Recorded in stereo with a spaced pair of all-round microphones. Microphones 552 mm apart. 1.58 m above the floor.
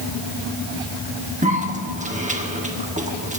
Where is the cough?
15° right (ahead or behind), 1.2 m.